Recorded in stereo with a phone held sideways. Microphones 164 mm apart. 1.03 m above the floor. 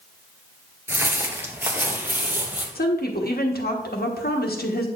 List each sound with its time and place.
0.9 s footsteps: 15° right (ahead or behind), 1.0 m; by 2.6 s 10° right (ahead or behind), 1.9 m
2.8 s a woman speaking: 75° left (ahead or behind), 1.3 m